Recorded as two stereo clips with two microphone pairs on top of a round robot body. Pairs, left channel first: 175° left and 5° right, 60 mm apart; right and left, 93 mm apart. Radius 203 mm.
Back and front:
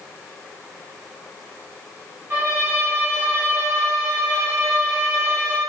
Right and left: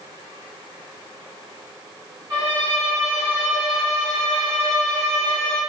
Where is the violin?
45° left, 0.6 m.